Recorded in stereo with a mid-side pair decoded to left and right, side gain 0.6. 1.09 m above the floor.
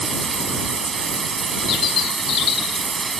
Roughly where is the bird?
Ahead left.